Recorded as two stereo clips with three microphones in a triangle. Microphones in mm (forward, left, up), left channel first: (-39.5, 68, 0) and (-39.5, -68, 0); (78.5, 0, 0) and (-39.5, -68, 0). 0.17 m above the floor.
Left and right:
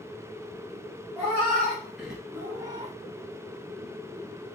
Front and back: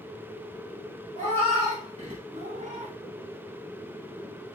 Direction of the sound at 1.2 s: 170° left.